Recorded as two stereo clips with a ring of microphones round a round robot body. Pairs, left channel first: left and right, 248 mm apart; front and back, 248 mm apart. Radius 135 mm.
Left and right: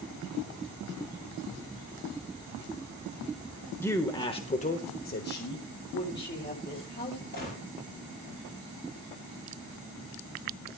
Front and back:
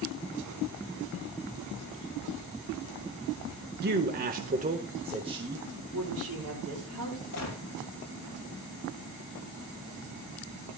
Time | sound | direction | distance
3.8 | a man speaking | 165° left | 1.3 m
5.9 | a woman speaking | 140° left | 8 m
7.3 | a gunshot | 35° left | 5.5 m